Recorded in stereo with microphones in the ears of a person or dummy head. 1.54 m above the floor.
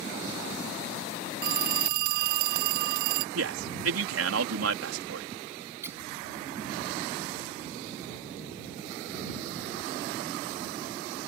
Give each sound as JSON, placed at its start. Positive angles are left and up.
{"t": 1.4, "sound": "a phone ringing", "side_deg": -60}
{"t": 3.4, "sound": "a man speaking", "side_deg": -80}
{"t": 5.8, "sound": "a squeak", "side_deg": -20}